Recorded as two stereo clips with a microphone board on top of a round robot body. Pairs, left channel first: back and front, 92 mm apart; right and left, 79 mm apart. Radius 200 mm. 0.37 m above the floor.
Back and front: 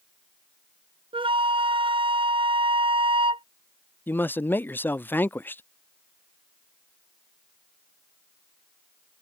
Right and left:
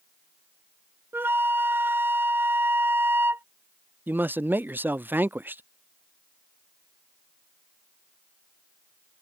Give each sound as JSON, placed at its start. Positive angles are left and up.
{"t": 1.1, "sound": "a flute", "azimuth_deg": 25}
{"t": 4.1, "sound": "a man speaking", "azimuth_deg": 130}